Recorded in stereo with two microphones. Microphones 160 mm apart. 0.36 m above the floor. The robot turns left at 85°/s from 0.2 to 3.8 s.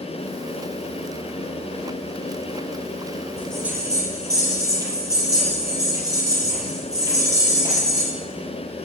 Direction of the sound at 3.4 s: 20° left.